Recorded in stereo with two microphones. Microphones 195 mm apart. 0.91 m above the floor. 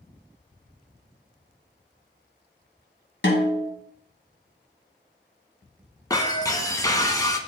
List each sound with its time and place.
3.2 s a snare drum: 70° left (ahead or behind), 1.8 m
6.1 s breaking glass: 20° left (ahead or behind), 0.8 m